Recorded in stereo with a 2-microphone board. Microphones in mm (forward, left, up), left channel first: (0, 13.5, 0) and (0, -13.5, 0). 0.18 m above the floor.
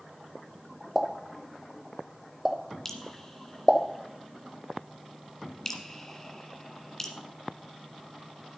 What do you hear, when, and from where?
0.9 s a pop: 10° right (ahead or behind), 1.3 m
2.9 s dripping: 20° left (ahead or behind), 1.6 m